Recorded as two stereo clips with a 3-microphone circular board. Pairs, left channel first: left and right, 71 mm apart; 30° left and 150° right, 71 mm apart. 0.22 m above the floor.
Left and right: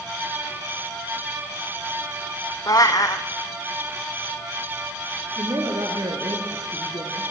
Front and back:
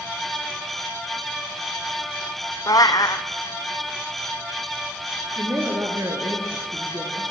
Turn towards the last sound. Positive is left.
turn(degrees=-105)